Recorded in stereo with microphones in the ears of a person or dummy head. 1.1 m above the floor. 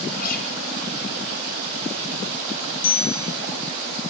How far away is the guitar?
About 4.5 m.